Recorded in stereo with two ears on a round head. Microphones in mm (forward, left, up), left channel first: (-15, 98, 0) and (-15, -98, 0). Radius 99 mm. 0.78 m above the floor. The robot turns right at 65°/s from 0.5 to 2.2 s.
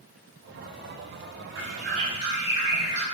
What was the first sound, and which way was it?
A bird, 60° right.